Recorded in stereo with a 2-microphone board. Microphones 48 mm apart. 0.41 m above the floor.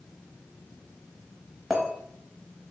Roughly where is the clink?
Centre.